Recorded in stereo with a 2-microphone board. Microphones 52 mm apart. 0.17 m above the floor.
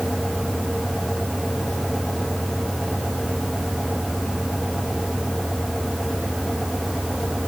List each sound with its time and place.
Only background noise.